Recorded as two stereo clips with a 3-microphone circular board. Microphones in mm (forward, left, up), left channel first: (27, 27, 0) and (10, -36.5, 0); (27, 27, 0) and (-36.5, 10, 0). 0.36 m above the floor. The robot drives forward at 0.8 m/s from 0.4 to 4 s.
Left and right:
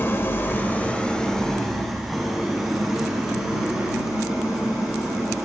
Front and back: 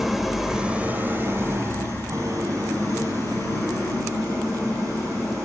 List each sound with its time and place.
0.0 s an engine running: 110° left, 0.7 m; by 5.5 s 170° left, 3 m